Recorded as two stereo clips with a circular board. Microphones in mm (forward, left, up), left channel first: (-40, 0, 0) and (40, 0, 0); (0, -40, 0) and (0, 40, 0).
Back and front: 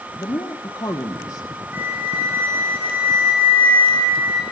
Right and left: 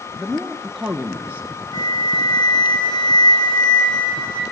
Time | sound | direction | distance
0.2 | a woman speaking | 175° right | 2.5 m
1.7 | a flute | 65° right | 5.5 m